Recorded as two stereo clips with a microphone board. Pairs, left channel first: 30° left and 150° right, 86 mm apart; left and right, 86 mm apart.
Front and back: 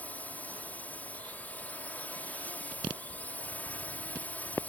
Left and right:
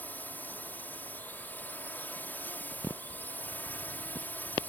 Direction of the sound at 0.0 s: 65° left.